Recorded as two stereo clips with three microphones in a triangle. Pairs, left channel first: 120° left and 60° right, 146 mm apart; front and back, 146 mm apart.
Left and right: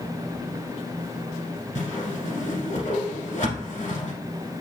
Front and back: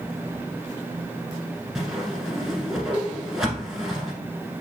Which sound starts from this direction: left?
A whoosh, at 1.8 s.